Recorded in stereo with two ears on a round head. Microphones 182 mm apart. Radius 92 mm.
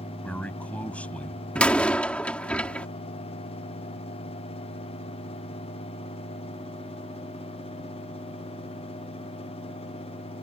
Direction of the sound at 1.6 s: 5° left (ahead or behind).